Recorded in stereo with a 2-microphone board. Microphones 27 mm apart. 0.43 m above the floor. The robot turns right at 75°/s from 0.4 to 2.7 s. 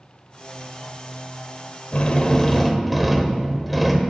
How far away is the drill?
About 0.6 m.